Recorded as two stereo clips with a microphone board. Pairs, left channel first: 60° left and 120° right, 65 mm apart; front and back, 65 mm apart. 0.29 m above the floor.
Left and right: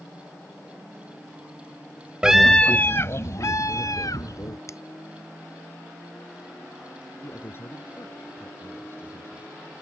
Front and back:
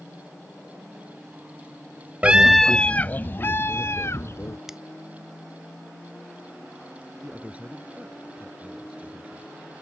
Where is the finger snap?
95° left.